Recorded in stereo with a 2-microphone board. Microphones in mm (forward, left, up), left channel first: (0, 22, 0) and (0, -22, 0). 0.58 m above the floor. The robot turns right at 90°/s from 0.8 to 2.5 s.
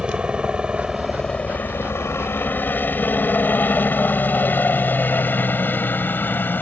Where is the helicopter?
20° right (ahead or behind); by 6.6 s 45° left (ahead or behind).